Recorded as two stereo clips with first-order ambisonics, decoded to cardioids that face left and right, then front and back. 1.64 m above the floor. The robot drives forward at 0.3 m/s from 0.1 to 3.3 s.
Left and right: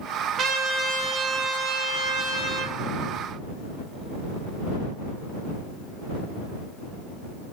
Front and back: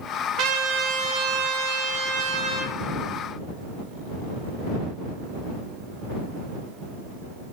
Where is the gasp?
I don't hear a gasp.